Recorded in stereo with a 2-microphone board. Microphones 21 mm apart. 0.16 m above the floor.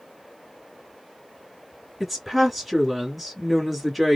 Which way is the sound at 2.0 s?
Centre (ahead or behind).